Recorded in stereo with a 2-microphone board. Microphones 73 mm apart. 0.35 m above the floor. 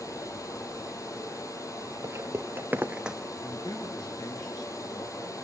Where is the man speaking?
75° left (ahead or behind), 6 m.